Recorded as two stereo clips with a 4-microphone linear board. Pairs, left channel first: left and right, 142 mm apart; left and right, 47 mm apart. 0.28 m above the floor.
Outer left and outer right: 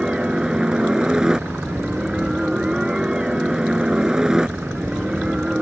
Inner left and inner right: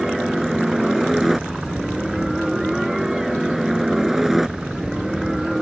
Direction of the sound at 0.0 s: 5° right (ahead or behind).